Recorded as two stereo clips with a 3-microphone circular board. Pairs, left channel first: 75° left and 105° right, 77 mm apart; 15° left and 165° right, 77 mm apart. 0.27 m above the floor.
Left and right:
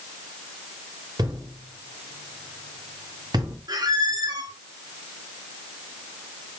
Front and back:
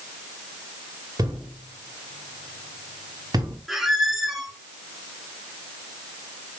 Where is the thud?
135° right, 3.5 m.